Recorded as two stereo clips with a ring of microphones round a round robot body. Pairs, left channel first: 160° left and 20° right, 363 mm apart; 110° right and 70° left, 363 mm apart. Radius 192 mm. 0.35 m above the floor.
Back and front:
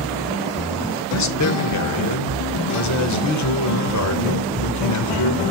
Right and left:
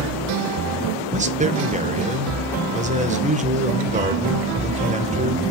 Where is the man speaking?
135° left, 1.2 m.